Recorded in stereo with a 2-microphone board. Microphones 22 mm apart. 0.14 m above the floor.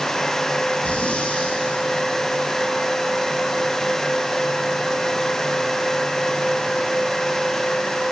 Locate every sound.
0.8 s breathing: 70° left (ahead or behind), 4.5 m